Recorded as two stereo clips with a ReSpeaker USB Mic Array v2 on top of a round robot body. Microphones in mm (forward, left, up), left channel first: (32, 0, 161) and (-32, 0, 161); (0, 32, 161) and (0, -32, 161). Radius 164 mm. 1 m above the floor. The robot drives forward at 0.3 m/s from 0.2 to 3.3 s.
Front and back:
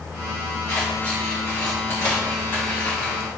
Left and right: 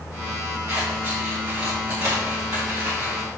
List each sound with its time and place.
0.7 s scissors: 45° right, 3 m; by 3.2 s 60° right, 3 m